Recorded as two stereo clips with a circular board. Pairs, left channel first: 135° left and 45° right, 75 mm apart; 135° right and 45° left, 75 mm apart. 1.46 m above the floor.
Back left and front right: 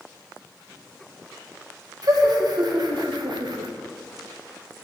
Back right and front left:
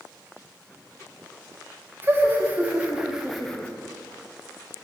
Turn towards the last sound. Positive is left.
turn(degrees=-60)